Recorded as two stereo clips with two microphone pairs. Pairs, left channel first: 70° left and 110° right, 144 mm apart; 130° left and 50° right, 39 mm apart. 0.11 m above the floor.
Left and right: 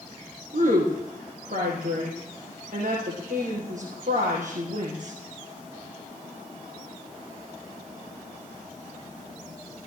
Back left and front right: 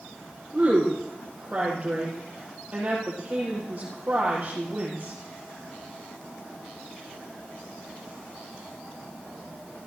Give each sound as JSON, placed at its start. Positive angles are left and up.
{"t": 0.5, "sound": "a woman speaking", "azimuth_deg": -110, "distance_m": 4.5}